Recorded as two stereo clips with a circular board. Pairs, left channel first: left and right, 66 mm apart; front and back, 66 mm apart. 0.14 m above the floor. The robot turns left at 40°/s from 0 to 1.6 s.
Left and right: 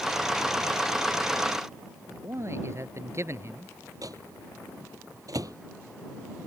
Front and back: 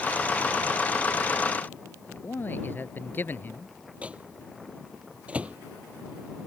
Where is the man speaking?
55° right.